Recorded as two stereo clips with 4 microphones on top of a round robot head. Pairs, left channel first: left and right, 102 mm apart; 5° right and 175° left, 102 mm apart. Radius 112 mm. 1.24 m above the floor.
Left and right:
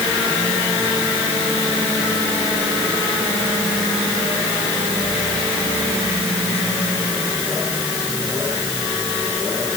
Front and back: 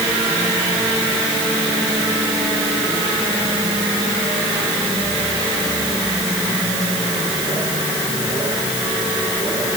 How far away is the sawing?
No sawing in this recording.